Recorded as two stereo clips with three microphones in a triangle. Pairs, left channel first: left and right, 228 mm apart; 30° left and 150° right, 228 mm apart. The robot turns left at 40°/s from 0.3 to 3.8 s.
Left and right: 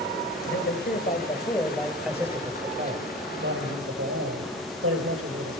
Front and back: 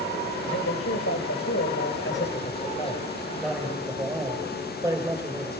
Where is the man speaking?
65° left, 8 m; by 5.6 s 70° right, 8 m.